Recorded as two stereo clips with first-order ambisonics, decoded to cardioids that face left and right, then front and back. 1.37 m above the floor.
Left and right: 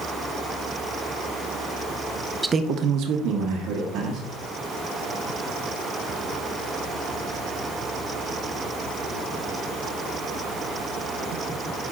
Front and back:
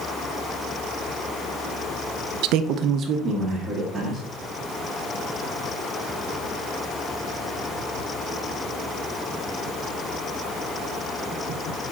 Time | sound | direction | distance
2.4 | a man speaking | 170° right | 0.5 m